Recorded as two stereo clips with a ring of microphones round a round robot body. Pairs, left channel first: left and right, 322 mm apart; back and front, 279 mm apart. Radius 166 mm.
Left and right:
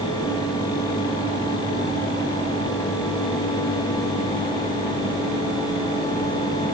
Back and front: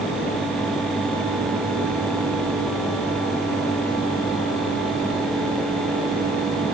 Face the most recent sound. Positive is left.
No sound to turn to.